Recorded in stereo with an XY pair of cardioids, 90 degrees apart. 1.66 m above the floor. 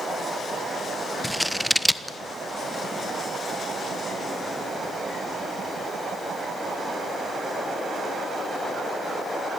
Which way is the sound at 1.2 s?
Straight ahead.